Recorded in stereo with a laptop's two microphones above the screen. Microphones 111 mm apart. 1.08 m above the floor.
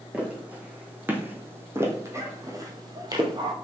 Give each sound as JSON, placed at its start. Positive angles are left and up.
{"t": 0.1, "sound": "footsteps", "side_deg": -10, "distance_m": 3.0}